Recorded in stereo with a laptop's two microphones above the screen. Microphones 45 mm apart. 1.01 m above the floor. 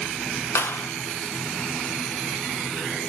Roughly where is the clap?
Left.